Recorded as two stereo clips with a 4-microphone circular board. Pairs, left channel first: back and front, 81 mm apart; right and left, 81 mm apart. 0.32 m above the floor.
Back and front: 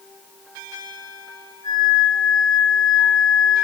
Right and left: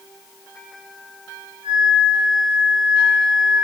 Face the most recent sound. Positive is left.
turn(degrees=10)